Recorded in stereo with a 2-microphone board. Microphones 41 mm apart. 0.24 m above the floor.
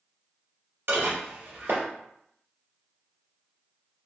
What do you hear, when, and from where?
0.9 s dishes clattering: 70° right (ahead or behind), 1.9 m